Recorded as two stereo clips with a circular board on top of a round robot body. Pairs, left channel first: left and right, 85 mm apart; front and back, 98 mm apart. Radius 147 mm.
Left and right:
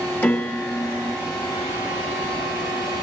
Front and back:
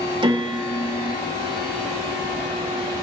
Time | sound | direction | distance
0.2 | a piano | 150° left | 1.3 m